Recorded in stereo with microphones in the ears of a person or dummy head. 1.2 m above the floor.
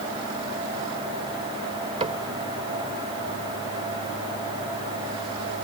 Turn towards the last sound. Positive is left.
turn(degrees=-25)  # may be behind; listen again after turning